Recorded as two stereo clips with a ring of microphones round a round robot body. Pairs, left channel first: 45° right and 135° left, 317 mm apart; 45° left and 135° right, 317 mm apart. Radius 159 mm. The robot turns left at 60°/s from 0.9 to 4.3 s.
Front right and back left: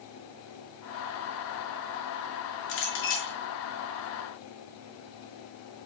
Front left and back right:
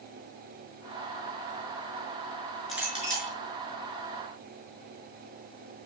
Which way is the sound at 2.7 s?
45° right.